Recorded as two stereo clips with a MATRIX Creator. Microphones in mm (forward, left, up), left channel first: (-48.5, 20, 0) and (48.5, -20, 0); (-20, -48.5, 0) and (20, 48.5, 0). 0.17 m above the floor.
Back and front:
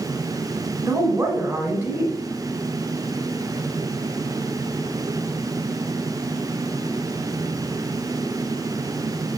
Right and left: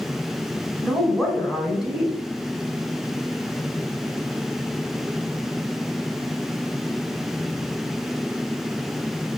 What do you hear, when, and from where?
0.8 s a woman speaking: 15° right, 1.0 m